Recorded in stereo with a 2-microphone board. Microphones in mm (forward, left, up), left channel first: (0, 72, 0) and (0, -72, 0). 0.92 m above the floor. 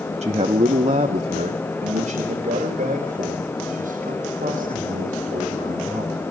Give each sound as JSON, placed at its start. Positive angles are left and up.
{"t": 0.2, "sound": "a man speaking", "side_deg": -50, "distance_m": 0.9}